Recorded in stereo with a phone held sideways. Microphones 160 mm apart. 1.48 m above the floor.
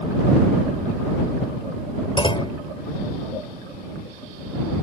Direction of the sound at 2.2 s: 30° left (ahead or behind).